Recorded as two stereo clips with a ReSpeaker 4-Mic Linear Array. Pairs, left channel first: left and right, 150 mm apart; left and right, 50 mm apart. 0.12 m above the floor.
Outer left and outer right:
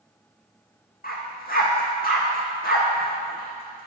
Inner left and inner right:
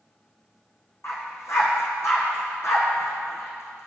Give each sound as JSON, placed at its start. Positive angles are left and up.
{"t": 1.0, "sound": "a dog barking", "side_deg": 65, "distance_m": 1.5}